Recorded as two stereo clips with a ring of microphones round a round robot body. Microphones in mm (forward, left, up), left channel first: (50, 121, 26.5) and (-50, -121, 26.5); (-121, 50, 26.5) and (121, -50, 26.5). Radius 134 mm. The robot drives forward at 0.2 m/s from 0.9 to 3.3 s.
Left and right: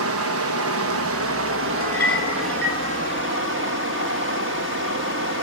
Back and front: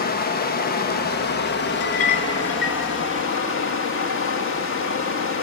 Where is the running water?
145° right, 1.0 m; by 5.4 s 160° right, 1.4 m.